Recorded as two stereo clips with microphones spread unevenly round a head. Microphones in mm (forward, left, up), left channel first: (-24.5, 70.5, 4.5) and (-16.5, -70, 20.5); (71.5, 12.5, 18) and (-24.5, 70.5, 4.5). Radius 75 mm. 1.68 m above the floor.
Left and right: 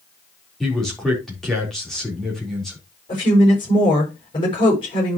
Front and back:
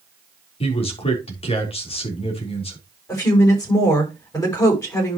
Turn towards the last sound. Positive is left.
turn(degrees=30)